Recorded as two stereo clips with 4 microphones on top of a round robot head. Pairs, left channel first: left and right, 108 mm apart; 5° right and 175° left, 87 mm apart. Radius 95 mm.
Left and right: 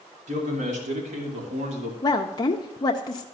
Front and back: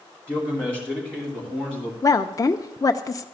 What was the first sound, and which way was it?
A man speaking, 85° right.